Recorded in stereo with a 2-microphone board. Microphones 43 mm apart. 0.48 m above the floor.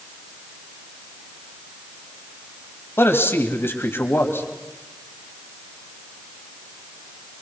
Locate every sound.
3.0 s a man speaking: 70° left (ahead or behind), 2.5 m